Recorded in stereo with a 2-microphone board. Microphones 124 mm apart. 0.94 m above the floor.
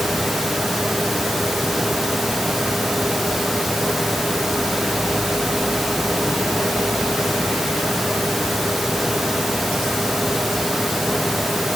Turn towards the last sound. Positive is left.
No sound to turn to.